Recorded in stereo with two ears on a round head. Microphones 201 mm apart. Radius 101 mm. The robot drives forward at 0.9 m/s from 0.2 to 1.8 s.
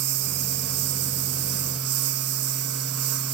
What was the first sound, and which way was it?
A lawn mower, 80° right.